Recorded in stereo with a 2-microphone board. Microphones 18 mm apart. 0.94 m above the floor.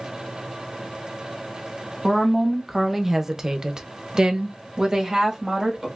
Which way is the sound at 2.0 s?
Centre (ahead or behind).